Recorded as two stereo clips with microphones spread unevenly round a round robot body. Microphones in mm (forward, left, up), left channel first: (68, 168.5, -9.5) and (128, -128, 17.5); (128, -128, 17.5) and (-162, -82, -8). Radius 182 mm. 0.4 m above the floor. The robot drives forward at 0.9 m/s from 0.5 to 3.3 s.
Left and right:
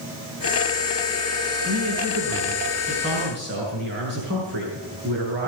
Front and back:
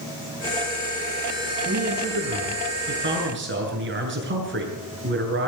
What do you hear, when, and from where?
1.6 s a man speaking: 130° right, 6 m; by 5.5 s 140° right, 7 m